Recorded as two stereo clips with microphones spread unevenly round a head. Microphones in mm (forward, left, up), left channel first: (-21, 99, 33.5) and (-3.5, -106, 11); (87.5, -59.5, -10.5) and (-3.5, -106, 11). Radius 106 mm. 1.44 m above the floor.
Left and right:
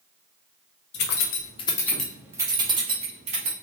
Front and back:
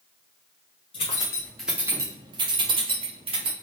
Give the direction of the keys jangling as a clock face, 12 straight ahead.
9 o'clock.